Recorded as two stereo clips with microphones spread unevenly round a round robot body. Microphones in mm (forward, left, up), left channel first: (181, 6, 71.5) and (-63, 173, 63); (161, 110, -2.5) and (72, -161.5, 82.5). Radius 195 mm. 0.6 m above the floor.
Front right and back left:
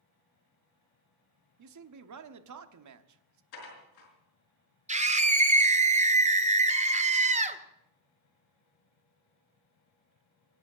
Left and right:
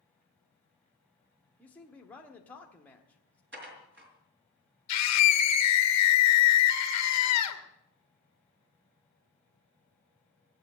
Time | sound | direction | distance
1.6 | a man speaking | 145° left | 1.1 m
3.5 | dishes clattering | 55° right | 5 m
4.9 | a scream | 80° left | 2 m